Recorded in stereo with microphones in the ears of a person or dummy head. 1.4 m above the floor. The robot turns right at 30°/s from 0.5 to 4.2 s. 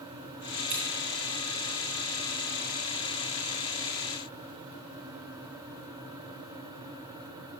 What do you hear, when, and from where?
0.7 s scissors: 30° right (ahead or behind), 1.7 m; by 0.8 s 35° right (ahead or behind), 1.7 m